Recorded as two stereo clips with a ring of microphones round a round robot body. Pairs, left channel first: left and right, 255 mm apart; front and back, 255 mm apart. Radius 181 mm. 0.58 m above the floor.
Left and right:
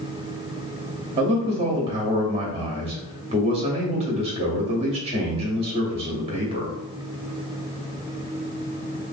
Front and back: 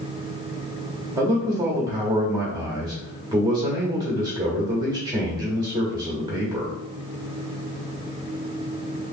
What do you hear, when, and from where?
1.1 s a man speaking: 125° right, 0.8 m